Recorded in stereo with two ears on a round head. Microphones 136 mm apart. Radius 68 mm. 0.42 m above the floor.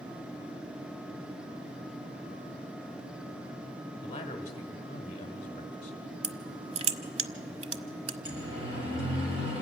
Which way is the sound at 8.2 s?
35° right (ahead or behind).